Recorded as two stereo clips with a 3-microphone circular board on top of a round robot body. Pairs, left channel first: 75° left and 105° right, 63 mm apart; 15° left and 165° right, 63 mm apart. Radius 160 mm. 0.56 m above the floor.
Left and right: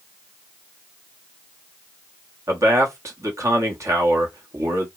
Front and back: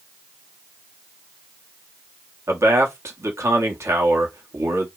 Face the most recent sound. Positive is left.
turn(degrees=-135)